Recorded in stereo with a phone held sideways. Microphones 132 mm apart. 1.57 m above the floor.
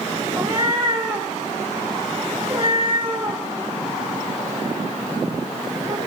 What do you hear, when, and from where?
0.4 s a cat meowing: 30° right (ahead or behind), 2.5 m